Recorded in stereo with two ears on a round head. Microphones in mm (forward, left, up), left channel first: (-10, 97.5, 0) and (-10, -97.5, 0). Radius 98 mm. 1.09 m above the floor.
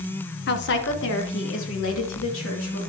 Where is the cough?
I don't hear a cough.